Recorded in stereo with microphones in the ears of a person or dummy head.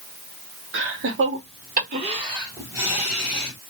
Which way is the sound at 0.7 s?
60° right (ahead or behind).